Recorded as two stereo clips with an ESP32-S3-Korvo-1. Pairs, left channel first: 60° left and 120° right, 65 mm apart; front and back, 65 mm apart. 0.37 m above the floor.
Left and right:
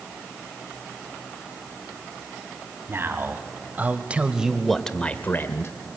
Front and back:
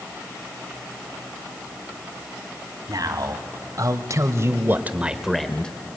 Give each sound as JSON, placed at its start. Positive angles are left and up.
{"t": 2.9, "sound": "a man speaking", "azimuth_deg": -170, "distance_m": 2.0}